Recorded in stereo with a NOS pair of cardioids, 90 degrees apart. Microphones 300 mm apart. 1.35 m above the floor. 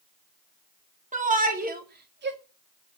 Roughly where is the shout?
Ahead right.